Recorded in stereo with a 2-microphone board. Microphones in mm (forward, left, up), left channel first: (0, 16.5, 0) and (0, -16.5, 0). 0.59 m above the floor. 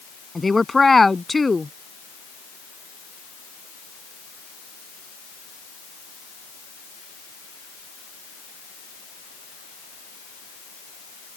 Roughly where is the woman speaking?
Centre.